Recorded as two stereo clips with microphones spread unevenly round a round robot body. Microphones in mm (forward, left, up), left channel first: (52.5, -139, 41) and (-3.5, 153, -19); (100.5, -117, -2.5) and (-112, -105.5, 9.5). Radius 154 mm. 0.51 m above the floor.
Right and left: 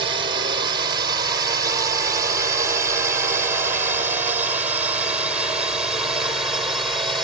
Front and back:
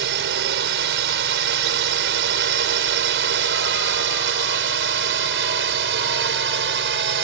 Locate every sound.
0.0 s a drone: 160° left; by 7.2 s 175° right